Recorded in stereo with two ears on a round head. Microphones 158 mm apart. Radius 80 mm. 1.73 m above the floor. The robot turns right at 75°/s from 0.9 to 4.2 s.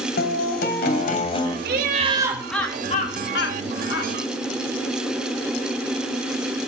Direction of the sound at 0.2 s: 110° left.